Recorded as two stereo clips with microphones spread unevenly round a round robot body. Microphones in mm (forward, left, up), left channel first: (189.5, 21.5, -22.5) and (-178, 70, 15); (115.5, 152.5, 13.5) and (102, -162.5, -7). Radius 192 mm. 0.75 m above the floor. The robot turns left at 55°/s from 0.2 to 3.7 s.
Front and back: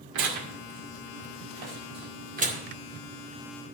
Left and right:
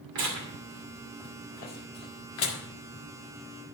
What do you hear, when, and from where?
0.1 s tearing paper: 135° right, 2 m; by 2.6 s 90° left, 2 m